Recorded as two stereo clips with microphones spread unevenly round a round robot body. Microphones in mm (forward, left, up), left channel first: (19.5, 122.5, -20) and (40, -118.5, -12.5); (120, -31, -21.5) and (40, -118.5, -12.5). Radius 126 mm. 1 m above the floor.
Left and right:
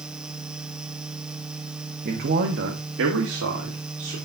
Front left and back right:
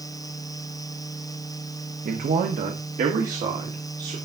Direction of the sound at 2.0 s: 145° right.